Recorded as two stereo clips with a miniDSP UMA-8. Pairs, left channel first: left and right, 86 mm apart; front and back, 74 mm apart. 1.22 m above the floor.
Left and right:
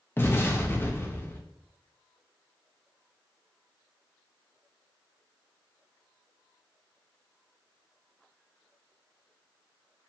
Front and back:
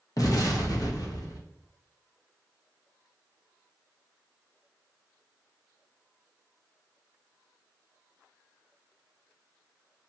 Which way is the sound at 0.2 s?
25° left.